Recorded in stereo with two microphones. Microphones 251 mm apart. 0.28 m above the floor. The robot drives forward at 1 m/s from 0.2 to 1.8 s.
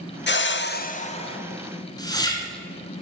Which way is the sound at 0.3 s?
45° left (ahead or behind).